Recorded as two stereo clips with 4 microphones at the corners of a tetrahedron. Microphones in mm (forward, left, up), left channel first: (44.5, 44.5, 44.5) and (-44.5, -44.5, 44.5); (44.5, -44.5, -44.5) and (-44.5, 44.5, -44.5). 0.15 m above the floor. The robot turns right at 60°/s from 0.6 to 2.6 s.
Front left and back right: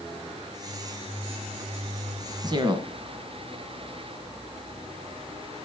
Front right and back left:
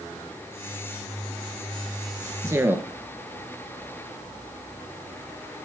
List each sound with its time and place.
2.4 s a man speaking: 175° right, 1.5 m; by 2.9 s 165° right, 1.5 m